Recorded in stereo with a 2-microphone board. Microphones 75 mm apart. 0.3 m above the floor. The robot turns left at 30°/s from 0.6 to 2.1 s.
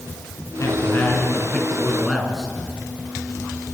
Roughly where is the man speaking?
Ahead left.